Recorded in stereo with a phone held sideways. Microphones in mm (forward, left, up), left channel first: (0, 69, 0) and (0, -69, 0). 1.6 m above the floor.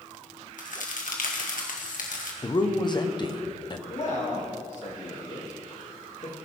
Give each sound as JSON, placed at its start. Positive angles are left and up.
{"t": 0.6, "sound": "a crack", "side_deg": 70, "distance_m": 1.8}
{"t": 2.4, "sound": "a man speaking", "side_deg": 30, "distance_m": 1.2}
{"t": 3.9, "sound": "a man speaking", "side_deg": 60, "distance_m": 3.0}